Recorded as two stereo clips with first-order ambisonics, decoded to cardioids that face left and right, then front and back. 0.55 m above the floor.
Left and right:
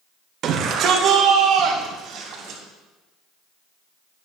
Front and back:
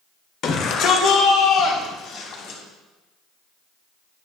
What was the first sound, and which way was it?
A shout, 45° right.